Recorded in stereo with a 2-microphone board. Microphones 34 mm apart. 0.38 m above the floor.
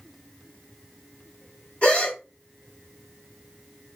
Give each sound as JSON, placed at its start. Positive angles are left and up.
{"t": 1.8, "sound": "a gasp", "side_deg": 45, "distance_m": 2.0}